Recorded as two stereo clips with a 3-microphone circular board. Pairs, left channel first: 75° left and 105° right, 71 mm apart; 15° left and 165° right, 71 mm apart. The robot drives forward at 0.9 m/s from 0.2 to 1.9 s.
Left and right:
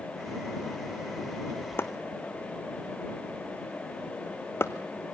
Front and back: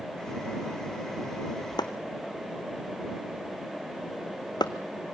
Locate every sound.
1.8 s chopping: 20° left, 1.4 m